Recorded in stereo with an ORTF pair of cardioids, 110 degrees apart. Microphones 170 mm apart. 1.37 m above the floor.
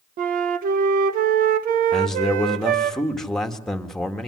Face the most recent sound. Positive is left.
turn(degrees=5)